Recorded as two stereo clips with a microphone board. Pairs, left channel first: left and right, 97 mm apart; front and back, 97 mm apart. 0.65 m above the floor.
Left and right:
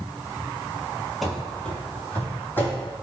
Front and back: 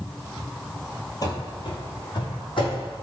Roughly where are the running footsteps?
Ahead.